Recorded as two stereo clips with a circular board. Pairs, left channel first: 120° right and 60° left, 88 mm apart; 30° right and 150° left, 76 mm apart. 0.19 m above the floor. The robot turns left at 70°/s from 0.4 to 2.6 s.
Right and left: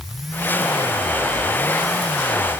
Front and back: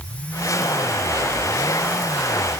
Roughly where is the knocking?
I don't hear knocking.